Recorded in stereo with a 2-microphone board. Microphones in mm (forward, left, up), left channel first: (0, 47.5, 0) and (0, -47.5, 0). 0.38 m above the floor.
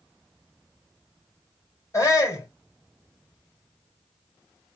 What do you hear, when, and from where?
1.9 s a shout: 35° left (ahead or behind), 2.5 m